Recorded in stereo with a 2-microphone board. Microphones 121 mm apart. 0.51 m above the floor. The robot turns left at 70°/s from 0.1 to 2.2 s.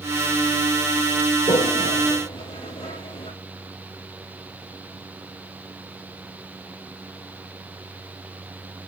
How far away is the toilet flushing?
About 2.5 m.